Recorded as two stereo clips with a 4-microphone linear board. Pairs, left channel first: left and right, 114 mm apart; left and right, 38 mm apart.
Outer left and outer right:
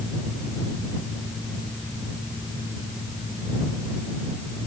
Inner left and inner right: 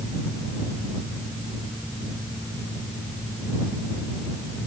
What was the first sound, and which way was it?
Only background noise.